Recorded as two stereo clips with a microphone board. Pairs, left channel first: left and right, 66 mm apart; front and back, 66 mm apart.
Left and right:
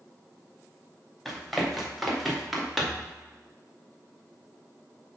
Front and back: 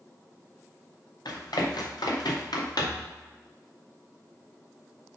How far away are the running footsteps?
About 4 m.